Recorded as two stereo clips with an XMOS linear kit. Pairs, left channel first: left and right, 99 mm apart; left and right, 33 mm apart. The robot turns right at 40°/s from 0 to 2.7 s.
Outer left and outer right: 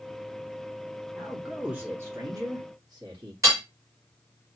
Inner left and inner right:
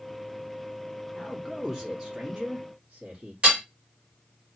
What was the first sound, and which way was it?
A man speaking, straight behind.